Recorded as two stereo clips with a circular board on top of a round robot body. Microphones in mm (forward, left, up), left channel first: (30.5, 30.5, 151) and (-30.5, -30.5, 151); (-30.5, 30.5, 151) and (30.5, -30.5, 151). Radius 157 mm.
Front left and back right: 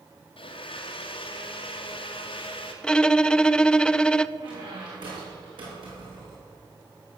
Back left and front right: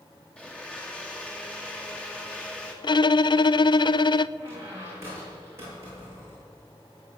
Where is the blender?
55° left, 2.5 m.